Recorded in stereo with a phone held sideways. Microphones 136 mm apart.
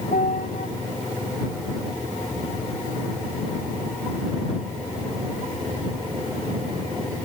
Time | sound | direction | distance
0.1 | a piano | 80° left | ?